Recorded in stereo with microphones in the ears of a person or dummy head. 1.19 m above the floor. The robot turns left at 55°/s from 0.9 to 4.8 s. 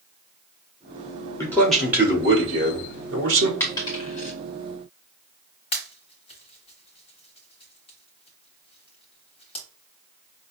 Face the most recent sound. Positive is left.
turn(degrees=35)  # may be behind; listen again after turning